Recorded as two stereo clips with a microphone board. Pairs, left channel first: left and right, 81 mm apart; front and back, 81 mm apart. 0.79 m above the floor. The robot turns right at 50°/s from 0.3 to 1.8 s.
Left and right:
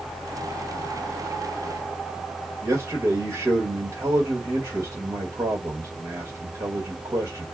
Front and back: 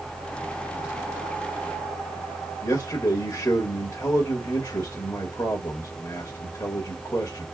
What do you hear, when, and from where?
2.6 s a man speaking: 40° right, 2 m